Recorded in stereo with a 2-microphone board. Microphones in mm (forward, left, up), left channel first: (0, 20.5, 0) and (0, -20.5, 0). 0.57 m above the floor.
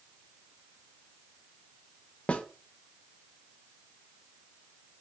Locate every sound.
2.3 s a snare drum: 30° left (ahead or behind), 0.6 m